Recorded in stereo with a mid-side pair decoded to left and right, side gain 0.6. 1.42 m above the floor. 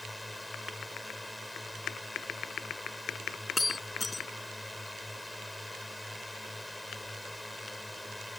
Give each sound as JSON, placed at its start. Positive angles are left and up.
{"t": 0.0, "sound": "a drone", "azimuth_deg": 5}
{"t": 3.6, "sound": "breaking glass", "azimuth_deg": 15}